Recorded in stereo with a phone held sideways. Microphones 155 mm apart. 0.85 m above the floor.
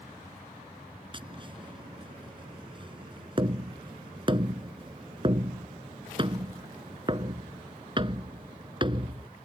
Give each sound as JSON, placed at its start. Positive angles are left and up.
{"t": 1.1, "sound": "tapping", "side_deg": -30}